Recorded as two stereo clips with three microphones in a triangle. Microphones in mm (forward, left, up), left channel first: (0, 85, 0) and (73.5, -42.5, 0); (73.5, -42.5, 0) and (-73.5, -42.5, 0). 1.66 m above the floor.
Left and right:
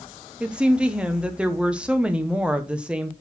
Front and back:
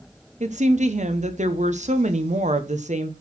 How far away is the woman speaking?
About 1.0 m.